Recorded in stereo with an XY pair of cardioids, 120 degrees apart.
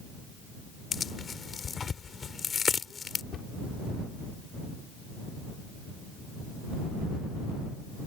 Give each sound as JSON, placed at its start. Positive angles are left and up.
{"t": 0.9, "sound": "tearing paper", "azimuth_deg": 35}
{"t": 3.3, "sound": "a cupboard door", "azimuth_deg": 50}